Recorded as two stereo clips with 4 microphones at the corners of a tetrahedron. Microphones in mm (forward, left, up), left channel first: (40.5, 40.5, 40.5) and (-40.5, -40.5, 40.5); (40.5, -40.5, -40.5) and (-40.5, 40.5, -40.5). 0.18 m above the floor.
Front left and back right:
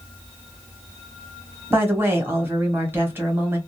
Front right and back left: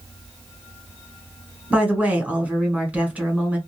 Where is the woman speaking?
165° right, 1.0 m.